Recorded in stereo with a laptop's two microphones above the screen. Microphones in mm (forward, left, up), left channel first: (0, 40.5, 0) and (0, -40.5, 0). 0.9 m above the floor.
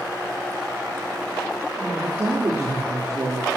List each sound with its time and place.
1.8 s a woman speaking: 40° right (ahead or behind), 2.5 m